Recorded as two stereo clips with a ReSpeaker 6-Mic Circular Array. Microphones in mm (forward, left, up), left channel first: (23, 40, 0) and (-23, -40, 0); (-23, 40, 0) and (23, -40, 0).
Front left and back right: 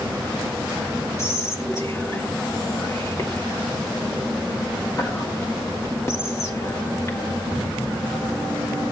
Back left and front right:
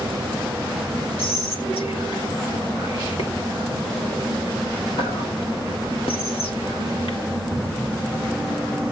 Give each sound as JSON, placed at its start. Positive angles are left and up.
{"t": 1.2, "sound": "whispering", "azimuth_deg": 120, "distance_m": 3.0}